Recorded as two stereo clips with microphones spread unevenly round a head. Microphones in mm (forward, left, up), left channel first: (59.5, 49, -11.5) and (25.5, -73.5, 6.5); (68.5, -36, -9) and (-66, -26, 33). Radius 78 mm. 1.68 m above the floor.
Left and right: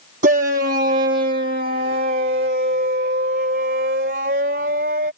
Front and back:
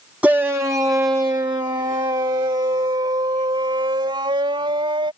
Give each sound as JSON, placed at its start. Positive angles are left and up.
{"t": 0.2, "sound": "a shout", "azimuth_deg": -110}